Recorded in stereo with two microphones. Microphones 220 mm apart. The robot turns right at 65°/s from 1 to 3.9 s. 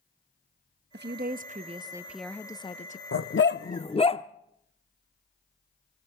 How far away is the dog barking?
About 0.6 m.